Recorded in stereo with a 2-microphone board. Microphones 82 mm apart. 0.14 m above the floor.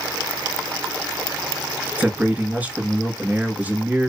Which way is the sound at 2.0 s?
20° right (ahead or behind).